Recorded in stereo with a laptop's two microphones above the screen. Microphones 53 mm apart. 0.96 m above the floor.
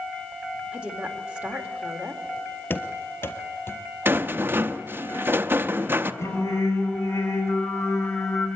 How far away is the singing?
About 4.5 m.